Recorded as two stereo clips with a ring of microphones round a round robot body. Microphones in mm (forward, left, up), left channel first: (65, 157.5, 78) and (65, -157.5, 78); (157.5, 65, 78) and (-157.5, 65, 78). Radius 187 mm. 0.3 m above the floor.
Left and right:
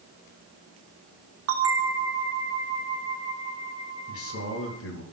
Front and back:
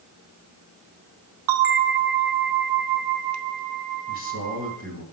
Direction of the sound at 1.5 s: 145° right.